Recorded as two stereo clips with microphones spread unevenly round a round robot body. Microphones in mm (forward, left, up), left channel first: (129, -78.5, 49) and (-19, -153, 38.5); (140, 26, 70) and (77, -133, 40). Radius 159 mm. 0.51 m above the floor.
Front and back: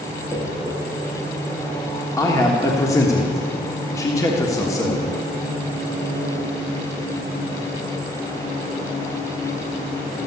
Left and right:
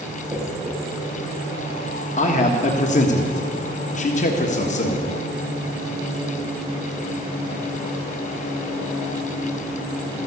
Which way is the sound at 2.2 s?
90° left.